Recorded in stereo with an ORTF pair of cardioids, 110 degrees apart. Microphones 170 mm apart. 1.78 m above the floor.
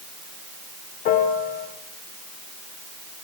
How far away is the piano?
About 1.5 m.